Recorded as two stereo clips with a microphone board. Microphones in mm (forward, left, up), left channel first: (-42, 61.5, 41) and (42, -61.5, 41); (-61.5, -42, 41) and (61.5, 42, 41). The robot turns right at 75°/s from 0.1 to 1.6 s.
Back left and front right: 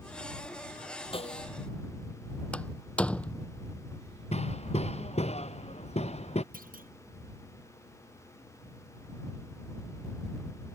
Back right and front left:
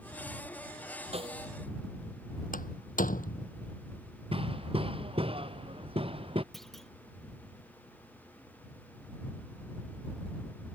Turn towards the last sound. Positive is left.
turn(degrees=-55)